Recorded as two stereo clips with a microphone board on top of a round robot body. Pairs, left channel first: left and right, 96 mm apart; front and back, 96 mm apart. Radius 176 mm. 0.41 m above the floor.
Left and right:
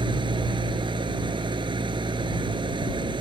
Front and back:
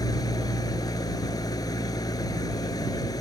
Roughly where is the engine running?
Ahead right.